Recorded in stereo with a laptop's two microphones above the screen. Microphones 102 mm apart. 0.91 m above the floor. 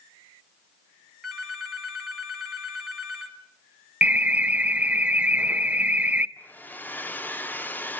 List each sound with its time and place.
1.2 s a phone ringing: 5° right (ahead or behind), 3 m
4.0 s an alarm: 15° right (ahead or behind), 0.8 m
6.4 s a hair dryer: 20° left (ahead or behind), 0.6 m